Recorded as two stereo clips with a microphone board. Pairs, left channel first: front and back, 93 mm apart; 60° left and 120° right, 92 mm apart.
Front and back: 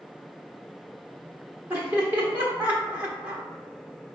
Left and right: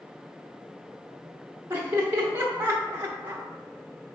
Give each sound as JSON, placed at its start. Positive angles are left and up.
{"t": 1.7, "sound": "laughter", "azimuth_deg": -145, "distance_m": 0.8}